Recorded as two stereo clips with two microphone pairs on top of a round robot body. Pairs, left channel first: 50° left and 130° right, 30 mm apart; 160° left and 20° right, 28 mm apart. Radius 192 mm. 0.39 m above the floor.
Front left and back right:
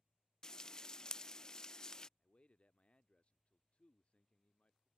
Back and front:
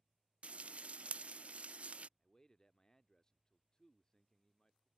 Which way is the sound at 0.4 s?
10° right.